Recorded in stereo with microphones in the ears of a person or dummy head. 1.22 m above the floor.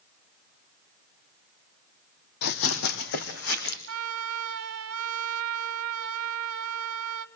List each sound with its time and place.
2.4 s running footsteps: 60° left (ahead or behind), 2.5 m; by 3.8 s 75° left (ahead or behind), 4 m
3.9 s a trumpet: 75° right (ahead or behind), 1.6 m